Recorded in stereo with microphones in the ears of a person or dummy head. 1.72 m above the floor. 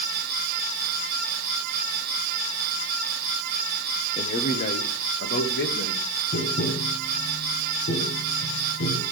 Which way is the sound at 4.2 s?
35° left (ahead or behind).